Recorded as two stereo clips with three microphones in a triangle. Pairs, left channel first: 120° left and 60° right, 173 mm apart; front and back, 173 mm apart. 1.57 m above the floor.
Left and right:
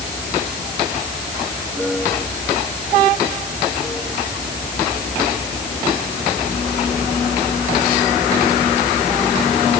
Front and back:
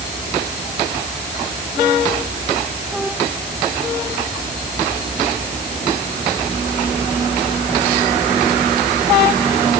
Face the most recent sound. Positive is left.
No sound to turn to.